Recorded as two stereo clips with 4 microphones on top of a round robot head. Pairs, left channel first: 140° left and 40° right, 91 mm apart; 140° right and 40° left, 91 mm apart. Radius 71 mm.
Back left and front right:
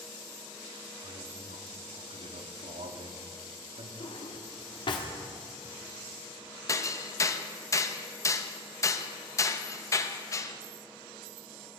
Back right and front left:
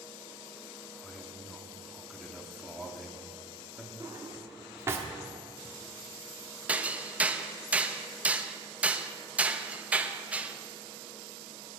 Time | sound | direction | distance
1.0 | a man speaking | 50° right | 1.5 m
4.0 | a drawer | 105° left | 1.2 m
6.7 | hammering | 110° left | 0.9 m